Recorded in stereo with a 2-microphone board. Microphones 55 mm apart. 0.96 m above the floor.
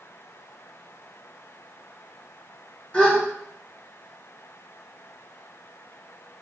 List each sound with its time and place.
2.9 s a gasp: 20° left (ahead or behind), 3 m